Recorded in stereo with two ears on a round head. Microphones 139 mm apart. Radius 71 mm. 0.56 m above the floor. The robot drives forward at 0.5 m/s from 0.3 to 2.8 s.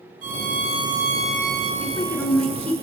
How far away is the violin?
About 3.5 m.